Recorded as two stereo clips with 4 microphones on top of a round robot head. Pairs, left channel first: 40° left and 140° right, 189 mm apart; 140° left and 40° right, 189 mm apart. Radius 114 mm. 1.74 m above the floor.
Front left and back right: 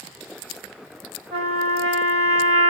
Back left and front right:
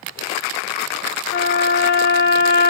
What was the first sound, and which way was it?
A trumpet, 80° right.